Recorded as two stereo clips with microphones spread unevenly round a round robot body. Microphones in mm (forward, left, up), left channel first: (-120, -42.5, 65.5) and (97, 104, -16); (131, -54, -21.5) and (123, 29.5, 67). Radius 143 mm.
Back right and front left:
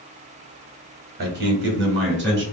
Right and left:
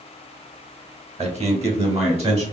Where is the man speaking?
55° left, 1.6 m; by 2.4 s 65° left, 2.5 m.